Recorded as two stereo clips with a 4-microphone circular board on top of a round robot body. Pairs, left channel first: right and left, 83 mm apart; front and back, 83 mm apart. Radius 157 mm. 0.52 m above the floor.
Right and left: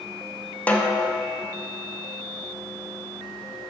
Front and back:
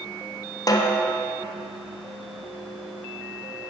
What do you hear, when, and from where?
0.7 s a snare drum: 25° right, 1.2 m